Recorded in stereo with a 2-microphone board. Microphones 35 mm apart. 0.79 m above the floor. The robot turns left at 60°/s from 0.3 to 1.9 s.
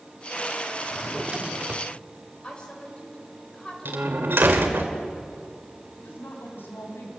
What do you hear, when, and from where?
0.8 s a drawer: 5° right, 0.9 m; by 1.9 s 65° right, 0.9 m
2.4 s a woman speaking: 30° left (ahead or behind), 4 m
3.9 s a door slam: 80° right, 2.5 m
6.0 s a woman speaking: 85° left, 5.5 m